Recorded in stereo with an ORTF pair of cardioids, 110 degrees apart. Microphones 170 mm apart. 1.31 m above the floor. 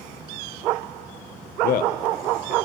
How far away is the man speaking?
About 0.7 m.